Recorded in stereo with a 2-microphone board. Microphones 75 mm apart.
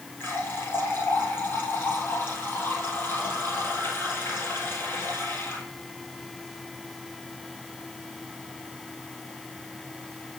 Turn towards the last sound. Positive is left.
turn(degrees=30)  # may be behind; listen again after turning